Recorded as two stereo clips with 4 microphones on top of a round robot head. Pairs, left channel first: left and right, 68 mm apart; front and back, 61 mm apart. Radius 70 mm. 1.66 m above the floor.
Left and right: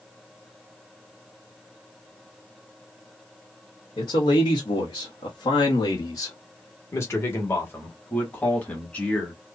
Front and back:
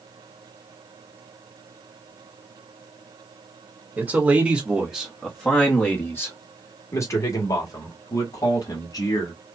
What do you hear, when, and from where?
4.0 s a man speaking: 120° left, 1.2 m; by 9.3 s 20° left, 2.5 m